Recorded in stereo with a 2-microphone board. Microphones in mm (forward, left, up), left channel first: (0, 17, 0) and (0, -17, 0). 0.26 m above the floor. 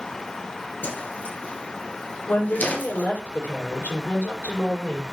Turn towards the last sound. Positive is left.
turn(degrees=75)  # may be behind; listen again after turning